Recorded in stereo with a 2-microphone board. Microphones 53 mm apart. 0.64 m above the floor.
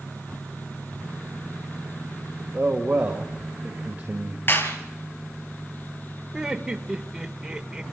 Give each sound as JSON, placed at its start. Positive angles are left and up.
{"t": 2.5, "sound": "a man speaking", "side_deg": -30, "distance_m": 2.0}
{"t": 4.5, "sound": "a clap", "side_deg": 50, "distance_m": 4.0}
{"t": 6.3, "sound": "laughter", "side_deg": -10, "distance_m": 1.8}